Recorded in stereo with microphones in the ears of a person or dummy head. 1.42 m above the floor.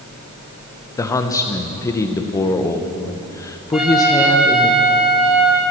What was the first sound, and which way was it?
A man speaking, 15° left (ahead or behind).